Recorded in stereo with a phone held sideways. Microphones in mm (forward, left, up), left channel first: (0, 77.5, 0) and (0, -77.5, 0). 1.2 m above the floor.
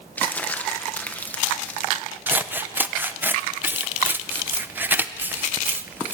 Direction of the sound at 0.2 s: 10° left (ahead or behind).